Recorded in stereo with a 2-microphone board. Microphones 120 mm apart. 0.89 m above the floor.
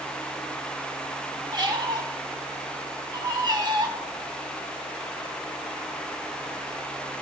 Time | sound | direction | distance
1.5 | a squeak | 35° right (ahead or behind) | 1.3 m